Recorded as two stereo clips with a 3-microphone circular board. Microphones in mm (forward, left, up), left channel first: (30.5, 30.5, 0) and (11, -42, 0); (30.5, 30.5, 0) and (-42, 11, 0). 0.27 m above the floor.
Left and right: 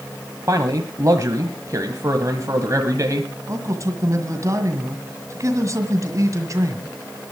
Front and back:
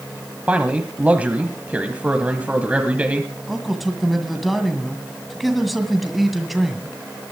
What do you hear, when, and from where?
0.5 s a man speaking: 100° right, 1.3 m
3.5 s a man speaking: 75° right, 1.7 m